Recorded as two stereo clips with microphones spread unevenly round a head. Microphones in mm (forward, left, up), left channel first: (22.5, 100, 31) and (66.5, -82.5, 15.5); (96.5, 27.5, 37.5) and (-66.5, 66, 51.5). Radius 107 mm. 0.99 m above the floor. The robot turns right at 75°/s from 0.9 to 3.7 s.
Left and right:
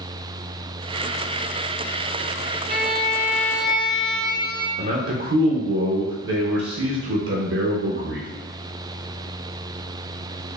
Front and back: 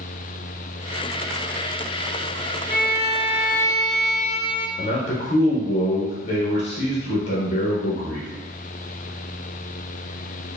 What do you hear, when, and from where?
2.7 s a violin: 40° right, 0.6 m; by 4.7 s 35° left, 0.6 m
4.8 s a man speaking: 60° right, 0.7 m